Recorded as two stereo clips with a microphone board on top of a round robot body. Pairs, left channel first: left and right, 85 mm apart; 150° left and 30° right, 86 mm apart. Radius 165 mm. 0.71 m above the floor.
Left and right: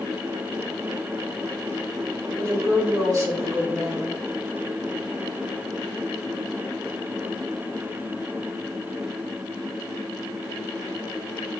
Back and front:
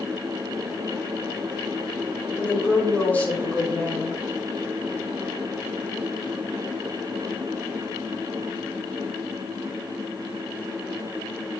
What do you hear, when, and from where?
2.4 s a woman speaking: 135° right, 3.5 m